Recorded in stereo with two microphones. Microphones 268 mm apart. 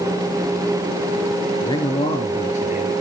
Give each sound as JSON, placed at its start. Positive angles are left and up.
{"t": 1.6, "sound": "a man speaking", "side_deg": 15, "distance_m": 1.8}